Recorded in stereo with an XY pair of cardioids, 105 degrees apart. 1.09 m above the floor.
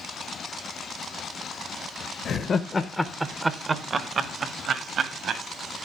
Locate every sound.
2.2 s laughter: 60° left, 1.0 m; by 5.4 s 65° right, 2.5 m